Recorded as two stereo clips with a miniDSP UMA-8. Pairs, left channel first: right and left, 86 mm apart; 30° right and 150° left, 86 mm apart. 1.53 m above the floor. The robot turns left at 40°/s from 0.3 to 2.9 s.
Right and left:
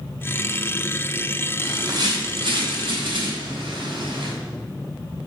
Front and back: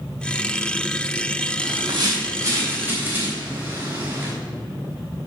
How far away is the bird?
About 3 m.